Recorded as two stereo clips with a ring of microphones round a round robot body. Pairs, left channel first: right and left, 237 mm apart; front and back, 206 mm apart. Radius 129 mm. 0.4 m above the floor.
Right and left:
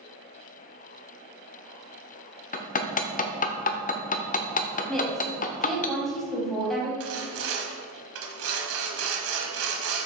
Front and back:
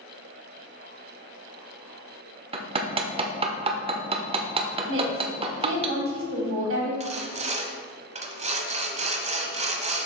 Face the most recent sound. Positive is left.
turn(degrees=120)